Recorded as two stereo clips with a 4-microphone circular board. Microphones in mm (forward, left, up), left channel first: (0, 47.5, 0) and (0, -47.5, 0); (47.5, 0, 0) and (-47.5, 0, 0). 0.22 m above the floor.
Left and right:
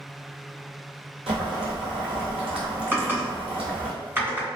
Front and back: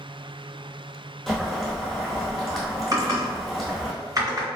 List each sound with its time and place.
1.3 s boiling: 90° right, 1.4 m
2.9 s typing on a keyboard: 145° right, 1.9 m